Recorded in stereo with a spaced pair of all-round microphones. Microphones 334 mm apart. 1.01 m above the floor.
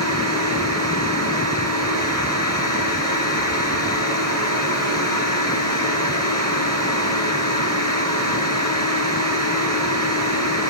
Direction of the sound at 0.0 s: 50° right (ahead or behind).